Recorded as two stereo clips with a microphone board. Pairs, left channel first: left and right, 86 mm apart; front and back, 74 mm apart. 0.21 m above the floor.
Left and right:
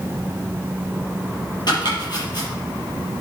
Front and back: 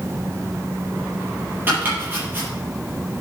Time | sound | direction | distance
1.7 | chopping | 120° left | 6 m